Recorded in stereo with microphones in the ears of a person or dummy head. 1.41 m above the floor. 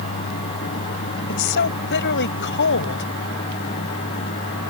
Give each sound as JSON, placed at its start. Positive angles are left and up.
{"t": 1.3, "sound": "a woman speaking", "side_deg": 55}